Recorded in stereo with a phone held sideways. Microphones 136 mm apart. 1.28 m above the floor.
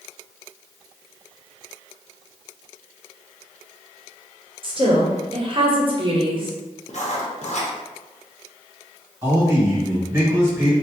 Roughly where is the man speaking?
Centre.